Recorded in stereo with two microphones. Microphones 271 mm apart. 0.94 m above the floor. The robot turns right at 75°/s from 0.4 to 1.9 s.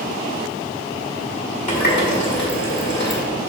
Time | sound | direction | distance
1.7 | a running tap | 25° left (ahead or behind) | 1.5 m